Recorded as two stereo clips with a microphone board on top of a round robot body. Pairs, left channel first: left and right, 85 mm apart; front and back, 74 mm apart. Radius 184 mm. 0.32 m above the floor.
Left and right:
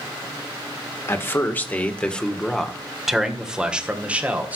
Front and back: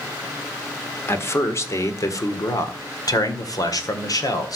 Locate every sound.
1.1 s a man speaking: 45° left, 2 m; by 4.6 s 20° right, 3 m